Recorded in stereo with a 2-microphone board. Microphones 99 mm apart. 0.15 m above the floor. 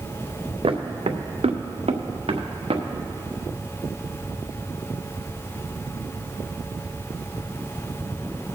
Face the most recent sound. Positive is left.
turn(degrees=-65)  # may be behind; listen again after turning